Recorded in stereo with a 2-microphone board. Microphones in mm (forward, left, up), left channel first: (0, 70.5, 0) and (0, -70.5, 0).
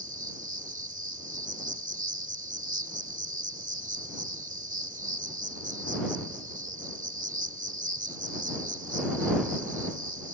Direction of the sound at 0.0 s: 70° right (ahead or behind).